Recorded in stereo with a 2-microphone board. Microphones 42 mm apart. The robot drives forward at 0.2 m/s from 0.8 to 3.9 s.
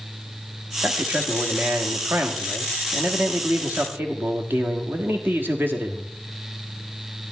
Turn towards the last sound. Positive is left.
turn(degrees=-50)  # may be behind; listen again after turning